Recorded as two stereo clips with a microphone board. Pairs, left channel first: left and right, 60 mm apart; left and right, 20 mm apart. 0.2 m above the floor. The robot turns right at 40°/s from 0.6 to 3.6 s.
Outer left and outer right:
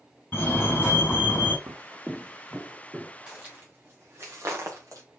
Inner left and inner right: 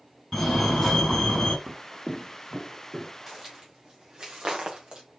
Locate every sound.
0.3 s a fire alarm: 55° left, 2.5 m; by 1.6 s 90° left, 2.5 m
1.7 s footsteps: 55° right (ahead or behind), 0.5 m; by 3.1 s 15° right (ahead or behind), 2 m
3.3 s footsteps: 15° right (ahead or behind), 2.5 m; by 5.0 s 65° right (ahead or behind), 2 m